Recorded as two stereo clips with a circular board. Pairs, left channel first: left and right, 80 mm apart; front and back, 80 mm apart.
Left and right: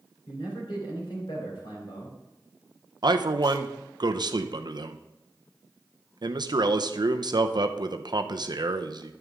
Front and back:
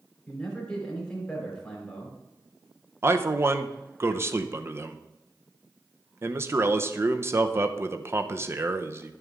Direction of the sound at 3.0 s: 120° right.